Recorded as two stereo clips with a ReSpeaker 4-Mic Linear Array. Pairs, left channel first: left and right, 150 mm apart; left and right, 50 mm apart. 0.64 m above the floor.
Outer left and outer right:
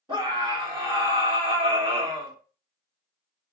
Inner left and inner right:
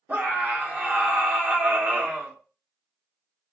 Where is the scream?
35° right (ahead or behind), 1.3 m.